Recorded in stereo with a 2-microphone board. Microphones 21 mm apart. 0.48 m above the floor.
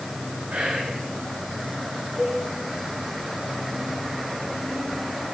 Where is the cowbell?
30° right (ahead or behind), 5 m.